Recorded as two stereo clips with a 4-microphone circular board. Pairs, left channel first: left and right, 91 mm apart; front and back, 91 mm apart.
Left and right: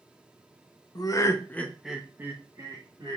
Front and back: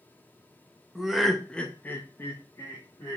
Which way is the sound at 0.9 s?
95° left.